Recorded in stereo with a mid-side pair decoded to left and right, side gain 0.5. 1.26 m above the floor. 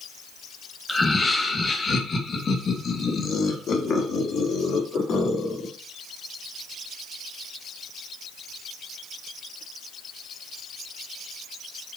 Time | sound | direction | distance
0.9 | laughter | 20° left | 1.8 m